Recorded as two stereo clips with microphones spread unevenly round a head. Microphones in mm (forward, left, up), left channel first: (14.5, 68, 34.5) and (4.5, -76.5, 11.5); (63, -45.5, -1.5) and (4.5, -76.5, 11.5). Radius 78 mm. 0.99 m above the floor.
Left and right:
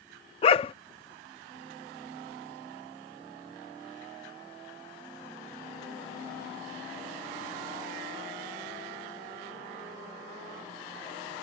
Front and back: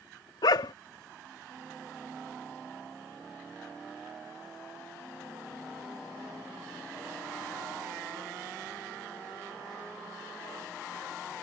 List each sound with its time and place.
0.4 s a dog barking: 55° left